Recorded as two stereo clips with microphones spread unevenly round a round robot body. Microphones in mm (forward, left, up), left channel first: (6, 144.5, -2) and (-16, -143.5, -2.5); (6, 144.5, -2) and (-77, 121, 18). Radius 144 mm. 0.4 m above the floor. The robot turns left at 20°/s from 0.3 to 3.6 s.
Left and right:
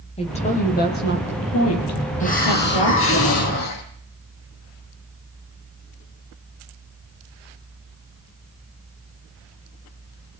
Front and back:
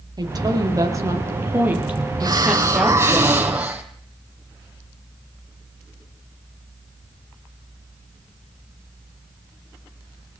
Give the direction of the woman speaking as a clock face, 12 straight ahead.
7 o'clock.